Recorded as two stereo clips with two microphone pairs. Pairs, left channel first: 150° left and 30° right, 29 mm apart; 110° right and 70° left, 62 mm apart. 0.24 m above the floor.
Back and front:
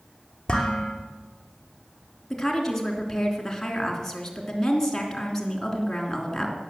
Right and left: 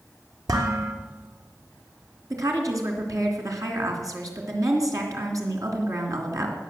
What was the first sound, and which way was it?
Dishes clattering, 80° left.